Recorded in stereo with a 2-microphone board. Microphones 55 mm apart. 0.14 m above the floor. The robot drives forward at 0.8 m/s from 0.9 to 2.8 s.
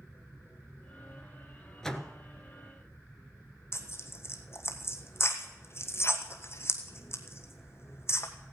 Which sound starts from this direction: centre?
A door slam, at 1.8 s.